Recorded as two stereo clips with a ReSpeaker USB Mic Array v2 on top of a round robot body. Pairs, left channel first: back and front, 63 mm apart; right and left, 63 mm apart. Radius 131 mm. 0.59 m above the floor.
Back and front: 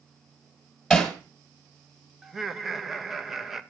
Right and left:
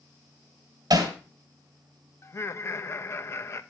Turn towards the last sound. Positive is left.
turn(degrees=-85)